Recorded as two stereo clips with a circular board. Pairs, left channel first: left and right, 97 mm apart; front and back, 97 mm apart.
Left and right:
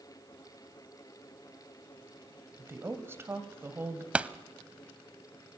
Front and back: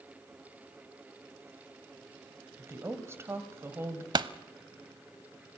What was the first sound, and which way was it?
A woman speaking, 140° right.